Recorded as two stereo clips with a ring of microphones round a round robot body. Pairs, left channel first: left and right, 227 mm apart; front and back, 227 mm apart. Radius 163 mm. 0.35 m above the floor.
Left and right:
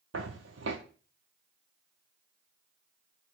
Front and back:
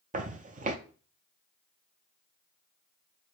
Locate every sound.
0.1 s footsteps: 130° right, 0.5 m